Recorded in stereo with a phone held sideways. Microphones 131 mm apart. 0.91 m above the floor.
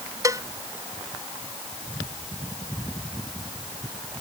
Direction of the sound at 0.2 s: 25° right (ahead or behind).